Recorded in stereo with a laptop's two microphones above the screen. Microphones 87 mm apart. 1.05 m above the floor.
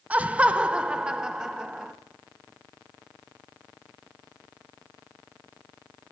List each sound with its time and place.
0.1 s laughter: 15° right (ahead or behind), 1.0 m; by 1.9 s 5° right (ahead or behind), 1.7 m